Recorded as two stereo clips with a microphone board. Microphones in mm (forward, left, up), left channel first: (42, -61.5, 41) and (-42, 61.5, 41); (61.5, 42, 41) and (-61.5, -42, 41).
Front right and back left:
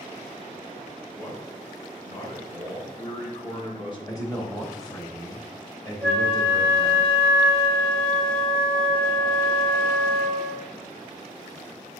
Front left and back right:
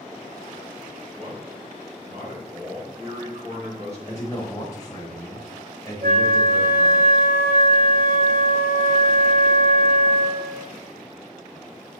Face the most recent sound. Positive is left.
turn(degrees=-140)